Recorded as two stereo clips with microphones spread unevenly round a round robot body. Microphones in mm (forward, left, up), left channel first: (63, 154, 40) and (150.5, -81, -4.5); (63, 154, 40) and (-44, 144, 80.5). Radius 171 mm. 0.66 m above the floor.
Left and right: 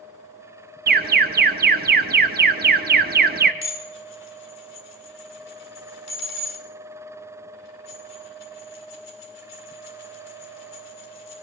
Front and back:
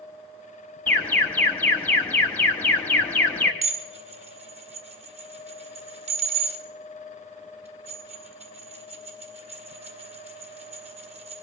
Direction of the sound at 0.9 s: 45° right.